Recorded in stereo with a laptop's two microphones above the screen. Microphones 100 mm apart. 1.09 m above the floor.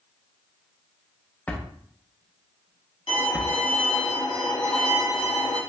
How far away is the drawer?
About 0.6 m.